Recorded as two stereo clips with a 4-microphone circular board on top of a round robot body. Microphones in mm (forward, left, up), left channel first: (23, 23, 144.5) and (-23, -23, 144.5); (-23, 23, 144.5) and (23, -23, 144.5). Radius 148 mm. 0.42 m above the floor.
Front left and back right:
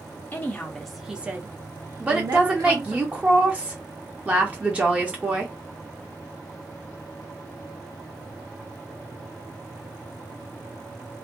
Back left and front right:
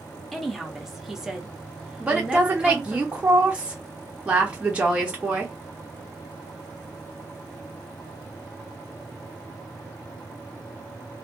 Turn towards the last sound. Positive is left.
turn(degrees=-90)